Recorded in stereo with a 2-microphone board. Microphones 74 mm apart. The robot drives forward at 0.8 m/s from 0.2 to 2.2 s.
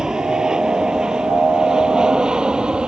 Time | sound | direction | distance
0.0 | an aircraft | 10° right (ahead or behind) | ?